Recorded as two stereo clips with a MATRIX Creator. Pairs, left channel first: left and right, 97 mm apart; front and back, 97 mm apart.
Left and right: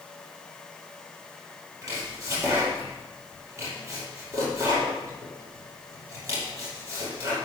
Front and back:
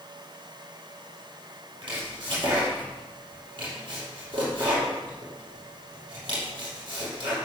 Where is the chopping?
145° right, 5.5 m.